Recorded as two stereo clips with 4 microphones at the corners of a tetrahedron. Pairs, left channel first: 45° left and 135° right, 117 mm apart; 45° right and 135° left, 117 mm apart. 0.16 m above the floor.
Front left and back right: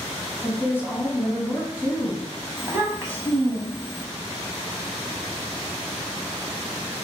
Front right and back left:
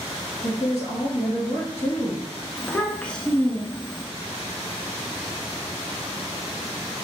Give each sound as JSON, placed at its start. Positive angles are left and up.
{"t": 0.4, "sound": "a woman speaking", "azimuth_deg": -70, "distance_m": 1.2}
{"t": 2.6, "sound": "a child speaking", "azimuth_deg": -110, "distance_m": 0.7}